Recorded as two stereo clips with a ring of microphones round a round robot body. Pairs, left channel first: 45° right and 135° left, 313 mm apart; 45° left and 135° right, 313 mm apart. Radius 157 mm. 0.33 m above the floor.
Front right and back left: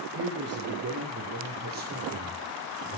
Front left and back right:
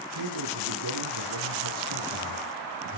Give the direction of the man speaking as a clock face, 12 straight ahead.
6 o'clock.